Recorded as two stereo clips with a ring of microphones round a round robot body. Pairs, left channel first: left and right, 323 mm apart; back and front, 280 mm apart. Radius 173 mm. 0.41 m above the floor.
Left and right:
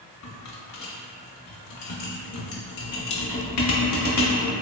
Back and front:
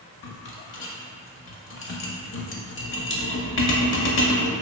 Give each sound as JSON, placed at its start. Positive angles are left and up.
{"t": 0.2, "sound": "a rattle", "azimuth_deg": 130, "distance_m": 0.6}